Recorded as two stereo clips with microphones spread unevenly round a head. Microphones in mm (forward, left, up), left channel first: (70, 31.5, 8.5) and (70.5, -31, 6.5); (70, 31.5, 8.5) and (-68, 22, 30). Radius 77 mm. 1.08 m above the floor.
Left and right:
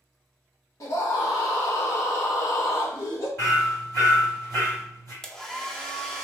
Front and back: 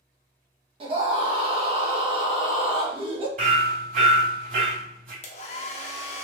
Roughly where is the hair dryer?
Ahead.